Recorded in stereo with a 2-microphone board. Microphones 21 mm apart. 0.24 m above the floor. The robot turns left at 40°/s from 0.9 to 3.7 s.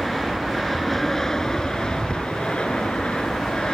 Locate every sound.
0.0 s an aircraft: 170° left; by 3.8 s 60° left